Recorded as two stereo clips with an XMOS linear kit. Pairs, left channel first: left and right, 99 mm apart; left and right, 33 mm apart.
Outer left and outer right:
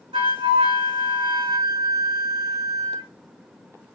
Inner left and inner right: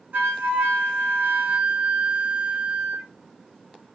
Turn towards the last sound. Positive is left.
turn(degrees=-65)  # may be behind; listen again after turning